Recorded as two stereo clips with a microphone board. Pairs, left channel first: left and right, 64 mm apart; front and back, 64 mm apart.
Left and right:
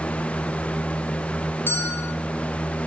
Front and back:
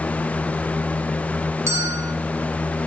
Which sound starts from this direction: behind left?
A bell, at 1.7 s.